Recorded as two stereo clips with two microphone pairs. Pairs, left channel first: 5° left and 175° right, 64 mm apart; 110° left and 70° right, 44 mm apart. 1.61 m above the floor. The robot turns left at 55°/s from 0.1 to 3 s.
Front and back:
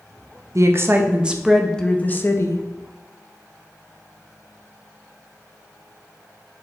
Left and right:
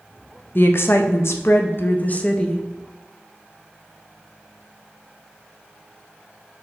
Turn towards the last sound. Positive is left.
turn(degrees=20)